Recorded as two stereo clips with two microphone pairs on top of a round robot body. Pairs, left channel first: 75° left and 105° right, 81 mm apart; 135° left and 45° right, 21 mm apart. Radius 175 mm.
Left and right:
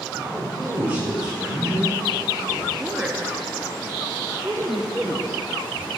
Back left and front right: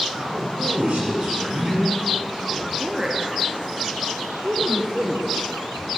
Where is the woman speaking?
50° right, 1.0 m.